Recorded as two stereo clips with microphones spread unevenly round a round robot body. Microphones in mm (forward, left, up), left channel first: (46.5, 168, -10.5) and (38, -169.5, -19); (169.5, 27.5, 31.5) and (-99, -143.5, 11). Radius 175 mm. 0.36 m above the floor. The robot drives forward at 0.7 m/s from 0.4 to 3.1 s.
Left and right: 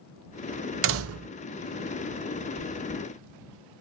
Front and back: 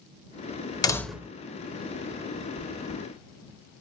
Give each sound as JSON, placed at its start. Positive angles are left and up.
{"t": 0.8, "sound": "a door slam", "azimuth_deg": -45, "distance_m": 0.8}
{"t": 2.6, "sound": "chewing", "azimuth_deg": 55, "distance_m": 3.0}